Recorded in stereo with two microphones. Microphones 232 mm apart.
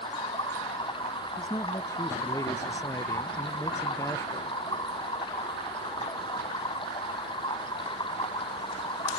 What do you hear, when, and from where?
0.0 s running water: 20° left (ahead or behind)
1.4 s a man speaking: 15° left (ahead or behind)